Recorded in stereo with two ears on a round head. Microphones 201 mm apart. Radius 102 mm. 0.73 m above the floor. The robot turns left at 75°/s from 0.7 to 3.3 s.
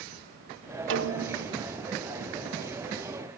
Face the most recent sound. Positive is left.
turn(degrees=115)